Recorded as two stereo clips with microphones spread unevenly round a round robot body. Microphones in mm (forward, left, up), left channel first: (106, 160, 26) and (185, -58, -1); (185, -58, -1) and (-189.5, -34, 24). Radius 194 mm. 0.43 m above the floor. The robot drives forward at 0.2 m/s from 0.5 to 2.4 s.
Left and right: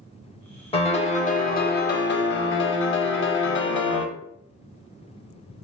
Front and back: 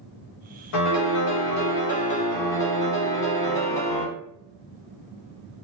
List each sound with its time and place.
0.7 s a piano: 40° left, 0.6 m; by 4.1 s 75° left, 0.5 m